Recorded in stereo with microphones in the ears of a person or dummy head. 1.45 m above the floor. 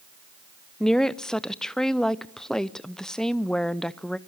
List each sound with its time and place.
0.8 s a woman speaking: 5° left (ahead or behind), 0.5 m